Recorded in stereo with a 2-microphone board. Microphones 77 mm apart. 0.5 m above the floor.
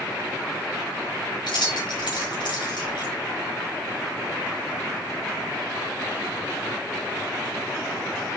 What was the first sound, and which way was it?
Keys jangling, 70° left (ahead or behind).